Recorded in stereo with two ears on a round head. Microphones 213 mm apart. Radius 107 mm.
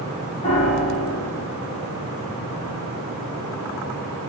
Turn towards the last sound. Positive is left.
turn(degrees=25)  # may be behind; listen again after turning